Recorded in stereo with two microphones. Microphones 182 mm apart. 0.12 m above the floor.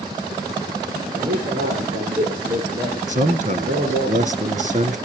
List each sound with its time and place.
1.1 s a man speaking: 55° right (ahead or behind), 9.5 m; by 4.1 s 50° right (ahead or behind), 12.5 m
3.1 s a man speaking: 45° right (ahead or behind), 1.4 m